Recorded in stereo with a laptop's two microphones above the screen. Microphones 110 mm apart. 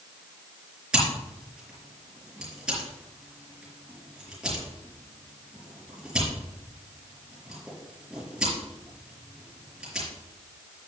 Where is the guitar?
No guitar in this recording.